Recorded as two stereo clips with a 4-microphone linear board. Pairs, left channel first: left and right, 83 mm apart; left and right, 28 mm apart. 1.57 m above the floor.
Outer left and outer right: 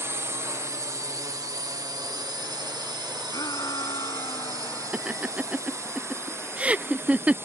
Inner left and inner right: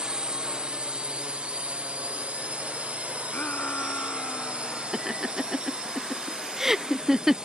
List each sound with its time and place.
0.0 s a drone: 35° right (ahead or behind)
3.3 s a shout: 50° left (ahead or behind)
4.9 s laughter: 15° right (ahead or behind)